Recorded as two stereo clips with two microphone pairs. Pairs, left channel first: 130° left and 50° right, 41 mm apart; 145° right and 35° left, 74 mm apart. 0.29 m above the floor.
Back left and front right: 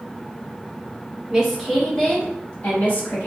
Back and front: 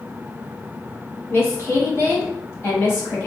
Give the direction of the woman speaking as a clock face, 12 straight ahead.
4 o'clock.